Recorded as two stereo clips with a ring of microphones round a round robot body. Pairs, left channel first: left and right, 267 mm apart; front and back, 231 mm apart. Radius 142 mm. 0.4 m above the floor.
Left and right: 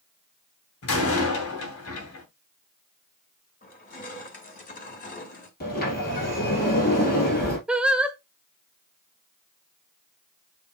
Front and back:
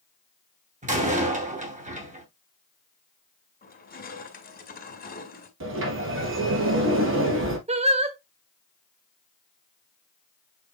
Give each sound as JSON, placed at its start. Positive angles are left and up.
{"t": 0.8, "sound": "a door slam", "azimuth_deg": 125, "distance_m": 2.5}
{"t": 3.6, "sound": "crushing", "azimuth_deg": 40, "distance_m": 2.5}
{"t": 5.6, "sound": "a sliding door", "azimuth_deg": 150, "distance_m": 3.0}
{"t": 7.7, "sound": "singing", "azimuth_deg": -170, "distance_m": 0.9}